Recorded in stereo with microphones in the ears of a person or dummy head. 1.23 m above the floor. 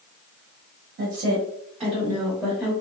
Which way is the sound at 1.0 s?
50° right (ahead or behind).